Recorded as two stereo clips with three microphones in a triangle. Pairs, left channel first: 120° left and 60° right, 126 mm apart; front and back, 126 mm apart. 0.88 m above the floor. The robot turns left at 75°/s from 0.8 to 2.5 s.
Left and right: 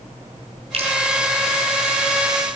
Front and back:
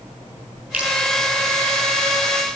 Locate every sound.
0.7 s dripping: 100° right, 6.5 m; by 0.9 s 110° right, 6.5 m